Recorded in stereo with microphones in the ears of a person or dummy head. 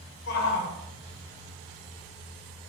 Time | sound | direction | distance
0.3 | a shout | 60° left (ahead or behind) | 0.8 m